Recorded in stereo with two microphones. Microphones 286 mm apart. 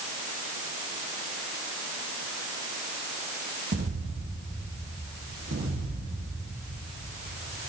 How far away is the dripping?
No dripping in this recording.